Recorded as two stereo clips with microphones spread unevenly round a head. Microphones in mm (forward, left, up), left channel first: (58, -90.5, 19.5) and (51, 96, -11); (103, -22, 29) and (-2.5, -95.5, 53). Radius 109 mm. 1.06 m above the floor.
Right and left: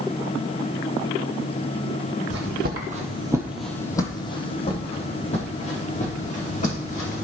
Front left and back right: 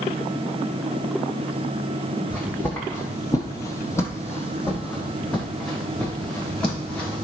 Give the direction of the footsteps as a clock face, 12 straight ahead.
8 o'clock.